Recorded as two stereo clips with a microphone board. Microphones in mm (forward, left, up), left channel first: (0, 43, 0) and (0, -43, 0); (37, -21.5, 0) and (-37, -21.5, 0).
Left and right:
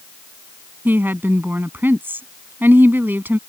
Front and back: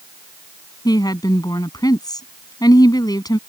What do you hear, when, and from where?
0.8 s a woman speaking: 25° right